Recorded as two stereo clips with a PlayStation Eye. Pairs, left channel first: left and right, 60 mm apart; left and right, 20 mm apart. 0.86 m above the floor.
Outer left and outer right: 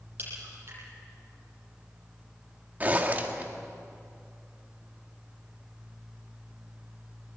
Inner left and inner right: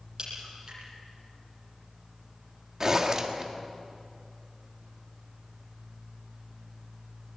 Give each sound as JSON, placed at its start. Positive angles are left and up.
{"t": 0.2, "sound": "a crack", "side_deg": -40, "distance_m": 9.5}
{"t": 2.8, "sound": "a zipper", "side_deg": -30, "distance_m": 1.8}